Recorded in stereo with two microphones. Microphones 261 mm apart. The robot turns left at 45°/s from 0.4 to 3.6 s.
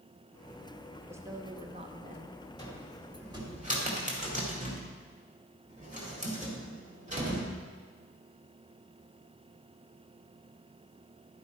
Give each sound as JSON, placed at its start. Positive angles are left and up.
{"t": 1.1, "sound": "a woman speaking", "side_deg": -10, "distance_m": 0.9}
{"t": 2.6, "sound": "a cupboard door", "side_deg": 15, "distance_m": 2.0}